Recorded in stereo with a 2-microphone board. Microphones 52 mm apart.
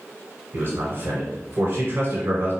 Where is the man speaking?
45° right (ahead or behind), 1.4 m.